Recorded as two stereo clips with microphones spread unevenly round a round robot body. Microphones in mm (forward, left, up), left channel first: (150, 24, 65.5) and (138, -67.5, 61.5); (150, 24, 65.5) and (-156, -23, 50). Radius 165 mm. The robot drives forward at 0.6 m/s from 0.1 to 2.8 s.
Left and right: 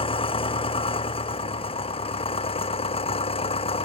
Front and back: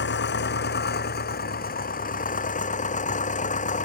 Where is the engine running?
65° left; by 3.9 s 75° left.